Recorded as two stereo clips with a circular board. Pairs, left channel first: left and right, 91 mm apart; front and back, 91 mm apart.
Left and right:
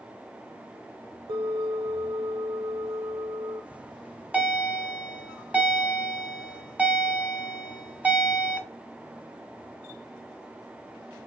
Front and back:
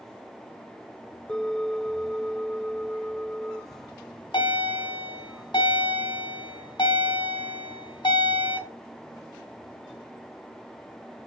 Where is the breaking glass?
No breaking glass in this recording.